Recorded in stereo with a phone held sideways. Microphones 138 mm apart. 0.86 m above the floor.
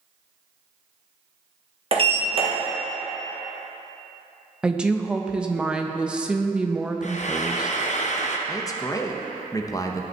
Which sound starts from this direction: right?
A sliding door, at 1.9 s.